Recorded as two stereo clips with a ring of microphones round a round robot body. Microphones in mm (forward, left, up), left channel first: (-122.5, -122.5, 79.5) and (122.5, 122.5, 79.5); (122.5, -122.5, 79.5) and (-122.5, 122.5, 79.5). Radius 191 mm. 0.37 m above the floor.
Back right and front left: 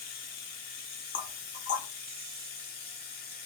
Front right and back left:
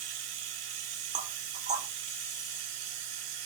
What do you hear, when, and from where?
0.0 s running water: 160° left, 0.9 m
1.1 s knocking: 170° right, 0.6 m